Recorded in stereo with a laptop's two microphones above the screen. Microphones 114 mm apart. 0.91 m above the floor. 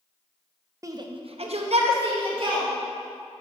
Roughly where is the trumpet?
I don't hear a trumpet.